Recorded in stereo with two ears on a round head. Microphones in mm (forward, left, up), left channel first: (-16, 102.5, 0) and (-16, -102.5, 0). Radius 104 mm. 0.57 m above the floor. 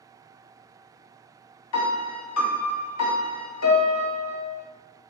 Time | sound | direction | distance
1.7 | a piano | 85° left | 0.6 m